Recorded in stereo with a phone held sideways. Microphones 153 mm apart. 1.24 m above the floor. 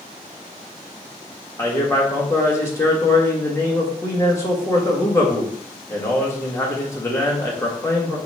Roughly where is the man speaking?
Centre.